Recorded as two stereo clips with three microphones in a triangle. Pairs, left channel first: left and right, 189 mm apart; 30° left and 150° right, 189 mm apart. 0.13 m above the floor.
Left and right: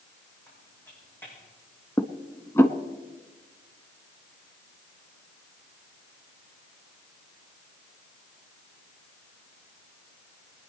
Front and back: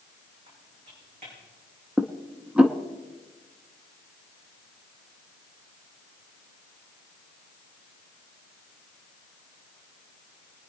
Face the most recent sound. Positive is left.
turn(degrees=140)